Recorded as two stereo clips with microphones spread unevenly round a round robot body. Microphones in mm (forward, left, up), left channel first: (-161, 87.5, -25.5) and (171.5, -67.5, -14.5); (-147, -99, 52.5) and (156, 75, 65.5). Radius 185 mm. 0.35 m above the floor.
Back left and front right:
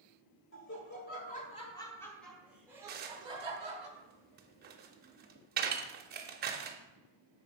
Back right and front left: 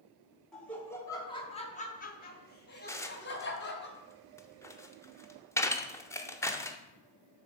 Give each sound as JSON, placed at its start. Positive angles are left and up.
{"t": 0.5, "sound": "laughter", "azimuth_deg": 125, "distance_m": 1.3}
{"t": 2.9, "sound": "dishes clattering", "azimuth_deg": -75, "distance_m": 0.7}